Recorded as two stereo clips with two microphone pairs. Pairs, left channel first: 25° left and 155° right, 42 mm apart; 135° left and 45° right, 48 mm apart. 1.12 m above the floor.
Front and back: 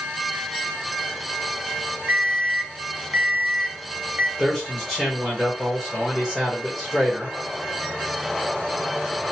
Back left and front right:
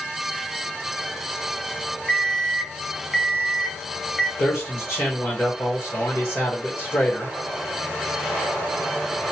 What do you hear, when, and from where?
2.1 s an alarm clock: 130° right, 0.6 m
4.4 s a man speaking: 100° left, 1.2 m